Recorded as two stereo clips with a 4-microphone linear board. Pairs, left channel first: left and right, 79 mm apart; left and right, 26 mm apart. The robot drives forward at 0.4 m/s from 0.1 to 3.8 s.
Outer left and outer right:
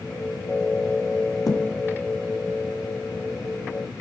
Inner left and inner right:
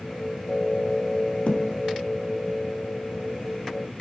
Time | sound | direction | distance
1.5 | a thud | 50° left (ahead or behind) | 4.5 m